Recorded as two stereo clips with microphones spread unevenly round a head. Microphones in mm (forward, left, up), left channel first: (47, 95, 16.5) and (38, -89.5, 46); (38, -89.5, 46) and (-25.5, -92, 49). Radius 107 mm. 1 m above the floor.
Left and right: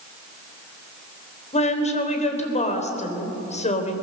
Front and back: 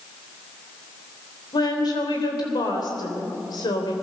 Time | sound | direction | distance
1.5 | a woman speaking | 35° left | 3.5 m